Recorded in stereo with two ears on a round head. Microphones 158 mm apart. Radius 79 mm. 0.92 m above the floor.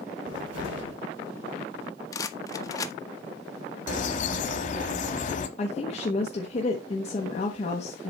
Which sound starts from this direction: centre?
A rattle, at 2.1 s.